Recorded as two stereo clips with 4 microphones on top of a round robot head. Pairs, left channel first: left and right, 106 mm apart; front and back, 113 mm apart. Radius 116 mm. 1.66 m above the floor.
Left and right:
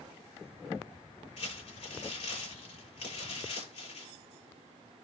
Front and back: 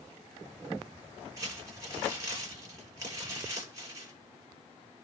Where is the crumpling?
115° left, 8.5 m.